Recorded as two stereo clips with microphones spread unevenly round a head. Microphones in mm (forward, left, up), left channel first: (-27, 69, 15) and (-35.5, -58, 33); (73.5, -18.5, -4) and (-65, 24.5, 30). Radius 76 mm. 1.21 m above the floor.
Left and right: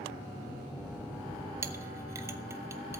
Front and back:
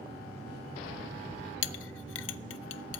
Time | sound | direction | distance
1.6 | a clink | 25° right | 0.5 m